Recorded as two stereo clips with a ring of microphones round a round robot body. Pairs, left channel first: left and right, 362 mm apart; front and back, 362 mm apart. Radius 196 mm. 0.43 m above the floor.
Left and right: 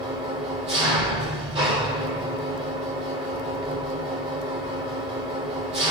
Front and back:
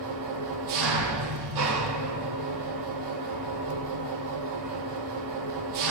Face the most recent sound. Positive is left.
turn(degrees=-165)